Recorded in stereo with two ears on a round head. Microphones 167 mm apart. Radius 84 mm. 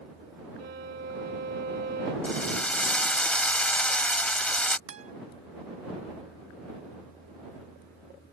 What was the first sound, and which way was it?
A violin, 55° right (ahead or behind).